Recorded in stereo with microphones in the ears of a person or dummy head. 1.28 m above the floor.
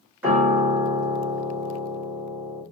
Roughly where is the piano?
Centre.